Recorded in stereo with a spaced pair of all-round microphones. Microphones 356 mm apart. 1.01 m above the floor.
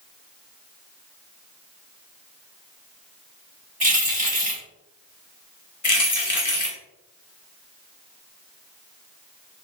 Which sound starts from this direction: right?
Keys jangling, at 3.8 s.